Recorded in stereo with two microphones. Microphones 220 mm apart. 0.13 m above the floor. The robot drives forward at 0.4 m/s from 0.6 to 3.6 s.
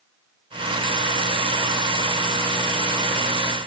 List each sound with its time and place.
Only background noise.